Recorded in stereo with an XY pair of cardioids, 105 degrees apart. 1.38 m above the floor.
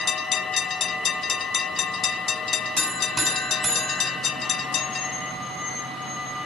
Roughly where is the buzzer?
Ahead.